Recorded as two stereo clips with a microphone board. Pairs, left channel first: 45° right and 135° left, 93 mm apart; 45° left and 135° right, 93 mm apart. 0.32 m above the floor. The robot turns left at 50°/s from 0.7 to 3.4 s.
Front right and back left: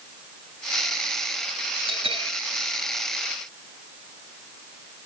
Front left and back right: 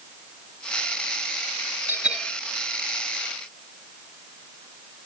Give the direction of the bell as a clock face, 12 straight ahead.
7 o'clock.